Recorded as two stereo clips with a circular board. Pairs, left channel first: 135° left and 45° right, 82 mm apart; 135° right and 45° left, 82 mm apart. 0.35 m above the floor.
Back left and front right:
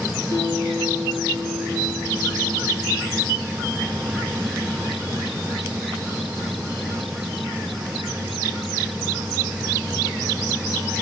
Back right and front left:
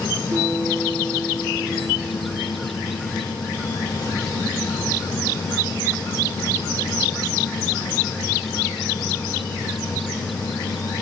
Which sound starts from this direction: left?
A guitar, at 0.3 s.